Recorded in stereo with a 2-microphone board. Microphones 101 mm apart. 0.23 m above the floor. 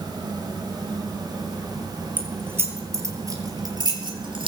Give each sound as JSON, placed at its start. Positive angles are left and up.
{"t": 2.2, "sound": "keys jangling", "side_deg": -15, "distance_m": 4.5}